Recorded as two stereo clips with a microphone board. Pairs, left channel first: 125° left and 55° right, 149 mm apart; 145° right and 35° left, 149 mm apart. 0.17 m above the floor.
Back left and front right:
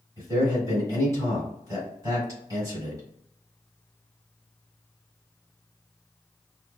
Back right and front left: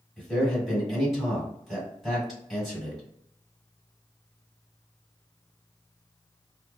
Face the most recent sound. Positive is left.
turn(degrees=-55)